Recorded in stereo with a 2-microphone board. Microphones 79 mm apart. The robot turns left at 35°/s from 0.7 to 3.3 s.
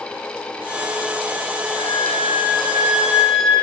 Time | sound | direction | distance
1.7 | a flute | 130° right | 2.5 m